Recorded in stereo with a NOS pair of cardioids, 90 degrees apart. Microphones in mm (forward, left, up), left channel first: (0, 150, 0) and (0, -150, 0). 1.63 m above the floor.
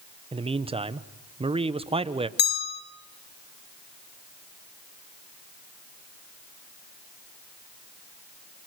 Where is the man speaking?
15° right, 1.5 m.